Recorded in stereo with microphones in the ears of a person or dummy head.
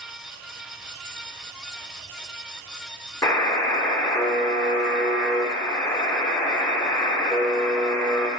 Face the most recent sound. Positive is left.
turn(degrees=20)  # may be behind; listen again after turning